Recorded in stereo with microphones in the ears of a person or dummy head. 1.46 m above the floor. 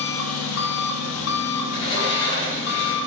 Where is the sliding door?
75° left (ahead or behind), 4 m.